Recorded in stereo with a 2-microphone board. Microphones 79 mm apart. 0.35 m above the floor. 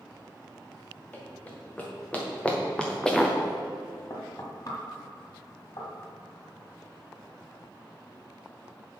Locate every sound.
1.1 s running footsteps: 20° left (ahead or behind), 3.5 m; by 3.4 s centre (ahead or behind), 1.3 m
4.1 s knocking: 50° left (ahead or behind), 1.8 m